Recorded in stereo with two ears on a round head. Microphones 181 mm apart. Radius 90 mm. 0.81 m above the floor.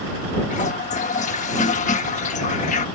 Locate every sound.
0.5 s a toilet flushing: 35° left (ahead or behind)